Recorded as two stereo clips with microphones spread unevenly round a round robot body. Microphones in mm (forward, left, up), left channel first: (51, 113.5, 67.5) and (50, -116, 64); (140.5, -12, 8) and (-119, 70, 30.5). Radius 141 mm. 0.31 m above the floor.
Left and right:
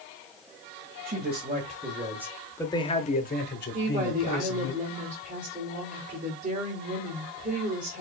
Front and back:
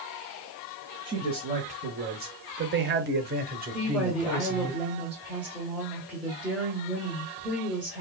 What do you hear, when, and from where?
1.1 s a man speaking: 125° right, 1.5 m; by 4.7 s 95° left, 2.0 m
3.7 s a woman speaking: 105° right, 1.7 m